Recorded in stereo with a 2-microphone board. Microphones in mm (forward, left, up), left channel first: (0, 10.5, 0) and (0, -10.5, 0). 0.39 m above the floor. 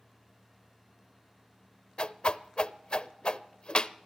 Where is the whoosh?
55° left (ahead or behind), 0.5 m.